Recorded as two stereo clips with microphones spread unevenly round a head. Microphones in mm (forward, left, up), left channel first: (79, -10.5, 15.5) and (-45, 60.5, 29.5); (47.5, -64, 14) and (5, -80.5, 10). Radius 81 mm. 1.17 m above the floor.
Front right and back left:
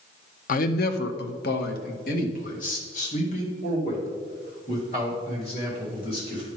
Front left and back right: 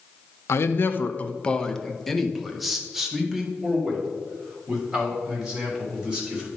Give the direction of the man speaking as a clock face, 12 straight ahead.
12 o'clock.